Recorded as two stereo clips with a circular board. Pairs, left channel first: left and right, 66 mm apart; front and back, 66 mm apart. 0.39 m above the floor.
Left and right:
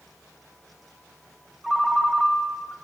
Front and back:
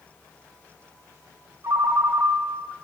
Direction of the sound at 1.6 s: 165° right.